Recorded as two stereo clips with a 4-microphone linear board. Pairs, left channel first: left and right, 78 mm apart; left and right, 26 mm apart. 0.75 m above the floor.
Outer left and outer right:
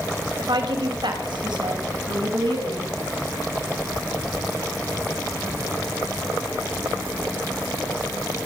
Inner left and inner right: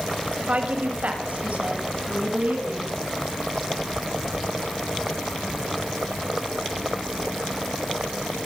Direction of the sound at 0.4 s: 75° right (ahead or behind).